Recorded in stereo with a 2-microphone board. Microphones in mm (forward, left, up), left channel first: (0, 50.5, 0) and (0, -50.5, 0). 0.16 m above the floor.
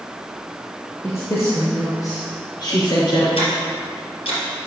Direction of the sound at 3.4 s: 65° left (ahead or behind).